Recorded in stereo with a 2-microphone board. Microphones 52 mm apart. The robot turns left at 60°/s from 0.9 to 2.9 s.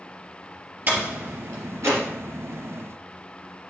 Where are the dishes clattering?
No dishes clattering in this recording.